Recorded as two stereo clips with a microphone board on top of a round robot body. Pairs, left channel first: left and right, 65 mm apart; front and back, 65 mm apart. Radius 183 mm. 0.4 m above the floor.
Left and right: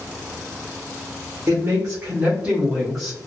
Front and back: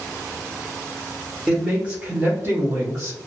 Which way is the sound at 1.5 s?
110° right.